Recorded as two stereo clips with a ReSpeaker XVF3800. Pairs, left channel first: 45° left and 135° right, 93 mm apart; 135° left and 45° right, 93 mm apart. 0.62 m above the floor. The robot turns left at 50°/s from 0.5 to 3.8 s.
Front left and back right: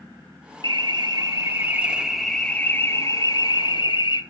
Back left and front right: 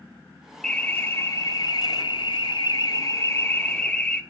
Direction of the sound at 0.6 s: 145° right.